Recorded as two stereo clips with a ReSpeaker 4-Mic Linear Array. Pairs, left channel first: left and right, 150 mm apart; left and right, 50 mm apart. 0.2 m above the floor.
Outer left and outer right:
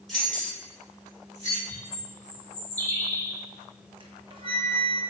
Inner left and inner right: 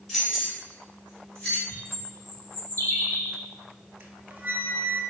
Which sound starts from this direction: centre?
Keys jangling, at 0.1 s.